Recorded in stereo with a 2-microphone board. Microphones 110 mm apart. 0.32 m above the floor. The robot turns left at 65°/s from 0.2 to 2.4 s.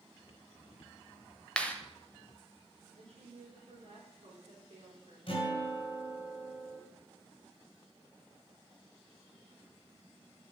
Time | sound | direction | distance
1.6 | a clap | 10° left (ahead or behind) | 0.9 m
3.0 | a woman speaking | 65° right (ahead or behind) | 4 m
5.3 | a guitar | 50° left (ahead or behind) | 3 m